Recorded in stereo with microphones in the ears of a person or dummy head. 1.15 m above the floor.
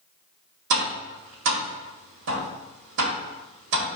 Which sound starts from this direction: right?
Tapping, at 0.7 s.